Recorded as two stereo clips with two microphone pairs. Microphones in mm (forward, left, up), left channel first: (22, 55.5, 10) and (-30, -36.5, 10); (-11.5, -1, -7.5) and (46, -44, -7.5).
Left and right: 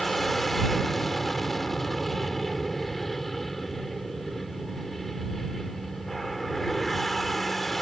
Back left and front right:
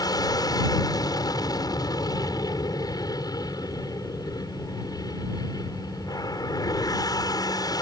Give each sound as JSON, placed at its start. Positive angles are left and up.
{"t": 0.0, "sound": "an aircraft", "azimuth_deg": 150}